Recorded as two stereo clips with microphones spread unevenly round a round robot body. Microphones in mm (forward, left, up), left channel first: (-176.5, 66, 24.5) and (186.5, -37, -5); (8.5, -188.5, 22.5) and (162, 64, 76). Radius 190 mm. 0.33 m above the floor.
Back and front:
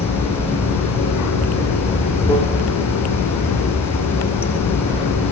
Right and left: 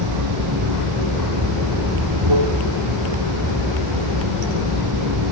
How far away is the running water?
About 7 m.